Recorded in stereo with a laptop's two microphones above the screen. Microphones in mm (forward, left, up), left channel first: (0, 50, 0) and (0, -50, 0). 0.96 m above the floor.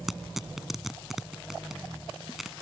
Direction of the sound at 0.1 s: 5° right (ahead or behind).